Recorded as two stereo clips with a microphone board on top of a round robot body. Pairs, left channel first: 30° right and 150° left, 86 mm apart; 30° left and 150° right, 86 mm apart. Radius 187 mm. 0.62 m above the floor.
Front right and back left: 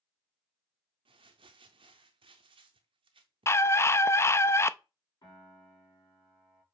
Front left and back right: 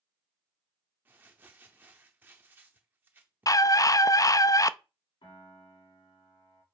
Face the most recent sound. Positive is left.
turn(degrees=10)